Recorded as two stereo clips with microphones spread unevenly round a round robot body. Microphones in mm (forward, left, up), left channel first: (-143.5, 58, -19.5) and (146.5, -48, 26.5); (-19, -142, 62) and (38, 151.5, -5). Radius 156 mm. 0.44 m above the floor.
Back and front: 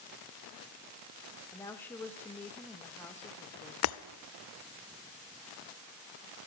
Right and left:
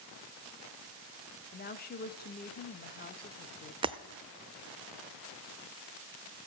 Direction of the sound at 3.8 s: 140° left.